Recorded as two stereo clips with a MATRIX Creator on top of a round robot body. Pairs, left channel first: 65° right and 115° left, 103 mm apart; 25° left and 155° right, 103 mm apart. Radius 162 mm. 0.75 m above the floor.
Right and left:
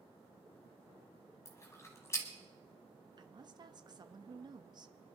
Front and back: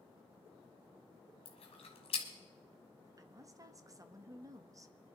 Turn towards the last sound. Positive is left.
turn(degrees=150)